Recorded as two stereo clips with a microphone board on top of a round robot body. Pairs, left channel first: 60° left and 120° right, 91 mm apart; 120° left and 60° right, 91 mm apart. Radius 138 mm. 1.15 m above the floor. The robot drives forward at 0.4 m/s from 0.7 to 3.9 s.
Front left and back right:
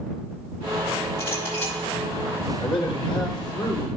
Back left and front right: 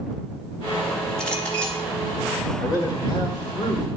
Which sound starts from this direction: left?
A man speaking, at 2.6 s.